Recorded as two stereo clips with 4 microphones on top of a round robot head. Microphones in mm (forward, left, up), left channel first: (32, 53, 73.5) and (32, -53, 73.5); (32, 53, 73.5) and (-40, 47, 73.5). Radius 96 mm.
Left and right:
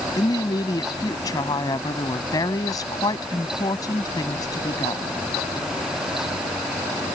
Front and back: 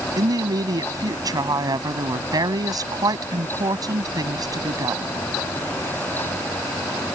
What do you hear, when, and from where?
0.2 s a woman speaking: 150° left